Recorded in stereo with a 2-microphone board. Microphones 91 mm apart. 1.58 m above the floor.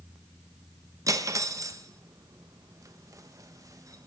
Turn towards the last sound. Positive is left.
turn(degrees=-35)  # may be behind; listen again after turning